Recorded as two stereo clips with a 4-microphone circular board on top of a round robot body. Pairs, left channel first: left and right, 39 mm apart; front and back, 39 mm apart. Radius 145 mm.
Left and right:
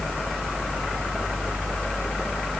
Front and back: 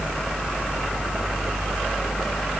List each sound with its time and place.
Only background noise.